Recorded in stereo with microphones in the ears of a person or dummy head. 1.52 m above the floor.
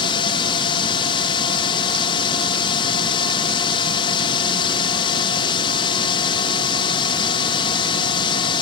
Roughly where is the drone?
Left.